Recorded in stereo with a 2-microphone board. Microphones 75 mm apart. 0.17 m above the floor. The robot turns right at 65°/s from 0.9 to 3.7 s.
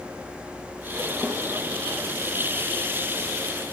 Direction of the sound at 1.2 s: Centre (ahead or behind).